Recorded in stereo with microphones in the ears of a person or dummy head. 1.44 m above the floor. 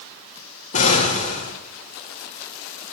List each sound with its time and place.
0.7 s an explosion: 35° left (ahead or behind), 1.8 m